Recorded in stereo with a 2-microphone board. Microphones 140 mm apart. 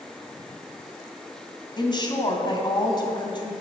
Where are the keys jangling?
I don't hear keys jangling.